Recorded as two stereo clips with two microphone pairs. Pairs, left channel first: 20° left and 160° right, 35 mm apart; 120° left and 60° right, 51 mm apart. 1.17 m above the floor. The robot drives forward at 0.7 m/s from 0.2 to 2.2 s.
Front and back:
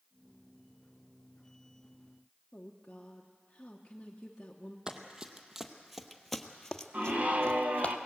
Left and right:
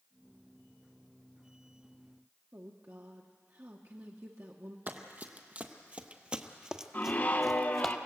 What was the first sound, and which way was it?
A woman speaking, 45° right.